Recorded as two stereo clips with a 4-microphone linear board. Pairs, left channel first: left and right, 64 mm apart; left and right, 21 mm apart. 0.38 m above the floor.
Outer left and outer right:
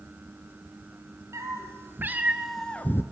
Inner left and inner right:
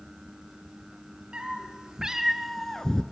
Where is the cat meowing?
50° right (ahead or behind), 1.9 m; by 3.0 s 40° left (ahead or behind), 0.9 m.